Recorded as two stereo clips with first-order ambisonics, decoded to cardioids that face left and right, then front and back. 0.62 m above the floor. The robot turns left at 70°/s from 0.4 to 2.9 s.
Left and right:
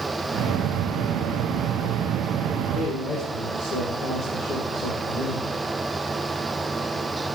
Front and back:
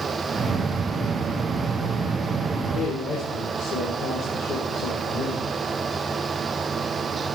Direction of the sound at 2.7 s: 50° left.